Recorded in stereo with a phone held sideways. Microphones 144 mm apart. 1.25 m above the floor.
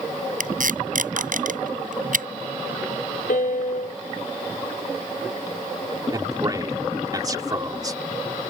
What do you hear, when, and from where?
0.4 s tape being pulled: 65° right (ahead or behind)
3.3 s a piano: 70° left (ahead or behind)
6.1 s a man speaking: 25° right (ahead or behind)